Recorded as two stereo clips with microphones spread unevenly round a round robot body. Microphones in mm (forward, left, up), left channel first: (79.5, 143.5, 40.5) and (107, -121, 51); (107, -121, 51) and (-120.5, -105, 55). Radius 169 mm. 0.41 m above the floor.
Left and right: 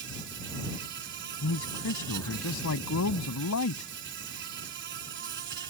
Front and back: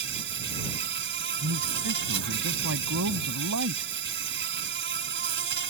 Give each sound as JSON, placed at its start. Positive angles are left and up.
{"t": 0.0, "sound": "an insect", "azimuth_deg": -145}
{"t": 1.4, "sound": "a man speaking", "azimuth_deg": 140}